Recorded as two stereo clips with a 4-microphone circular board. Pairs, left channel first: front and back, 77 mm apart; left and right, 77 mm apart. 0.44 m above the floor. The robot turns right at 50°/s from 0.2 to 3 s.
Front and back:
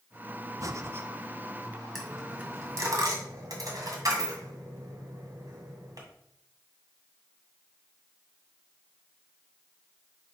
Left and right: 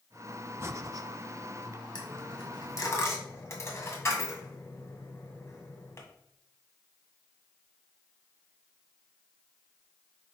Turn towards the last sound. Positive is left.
turn(degrees=145)